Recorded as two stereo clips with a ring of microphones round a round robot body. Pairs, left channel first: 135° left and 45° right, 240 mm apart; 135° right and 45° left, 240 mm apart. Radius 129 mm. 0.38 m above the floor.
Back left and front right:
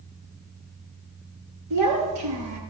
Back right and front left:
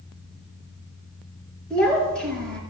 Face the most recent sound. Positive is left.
turn(degrees=-50)